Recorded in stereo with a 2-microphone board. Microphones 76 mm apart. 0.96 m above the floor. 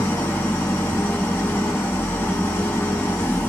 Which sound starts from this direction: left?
An engine running, at 0.0 s.